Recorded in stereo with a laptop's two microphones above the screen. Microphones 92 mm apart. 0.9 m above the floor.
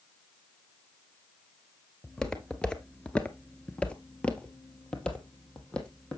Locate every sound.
2.0 s footsteps: 5° left (ahead or behind), 1.0 m; by 6.2 s 10° left (ahead or behind), 2.5 m